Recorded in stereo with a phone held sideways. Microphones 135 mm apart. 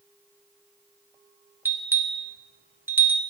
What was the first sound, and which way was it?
A bell, 15° right (ahead or behind).